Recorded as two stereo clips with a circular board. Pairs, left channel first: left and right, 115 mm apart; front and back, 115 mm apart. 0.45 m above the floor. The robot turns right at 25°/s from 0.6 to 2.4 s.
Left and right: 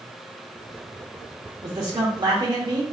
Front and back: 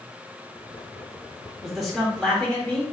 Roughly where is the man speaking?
Right.